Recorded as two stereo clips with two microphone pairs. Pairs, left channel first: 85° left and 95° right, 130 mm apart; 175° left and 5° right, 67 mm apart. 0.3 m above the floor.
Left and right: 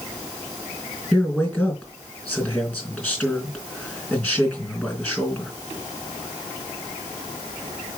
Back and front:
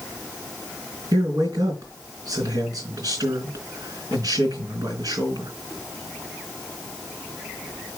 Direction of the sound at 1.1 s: 10° left.